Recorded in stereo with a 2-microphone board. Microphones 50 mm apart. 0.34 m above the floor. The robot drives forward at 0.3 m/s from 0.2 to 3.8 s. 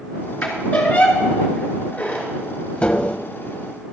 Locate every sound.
0.4 s a squeak: 25° left (ahead or behind), 2.5 m; by 2.3 s 20° left (ahead or behind), 3 m
2.8 s tapping: 25° left (ahead or behind), 0.7 m